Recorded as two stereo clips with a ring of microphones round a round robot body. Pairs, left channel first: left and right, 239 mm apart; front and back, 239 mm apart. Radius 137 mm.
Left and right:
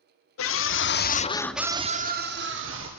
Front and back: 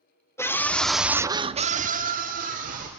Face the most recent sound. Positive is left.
turn(degrees=-125)